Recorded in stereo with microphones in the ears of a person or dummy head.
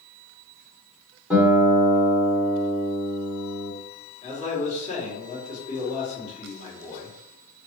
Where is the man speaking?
40° left (ahead or behind), 1.7 m.